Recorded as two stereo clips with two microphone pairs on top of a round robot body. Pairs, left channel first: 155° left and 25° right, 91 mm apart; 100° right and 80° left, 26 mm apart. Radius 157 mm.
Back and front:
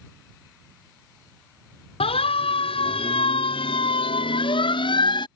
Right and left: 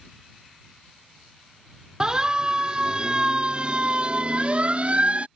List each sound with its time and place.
2.0 s a siren: 145° left; by 5.3 s 120° left